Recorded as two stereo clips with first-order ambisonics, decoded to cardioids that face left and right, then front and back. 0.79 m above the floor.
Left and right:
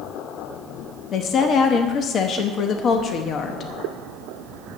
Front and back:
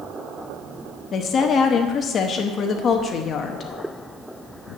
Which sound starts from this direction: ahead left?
A woman speaking, at 1.1 s.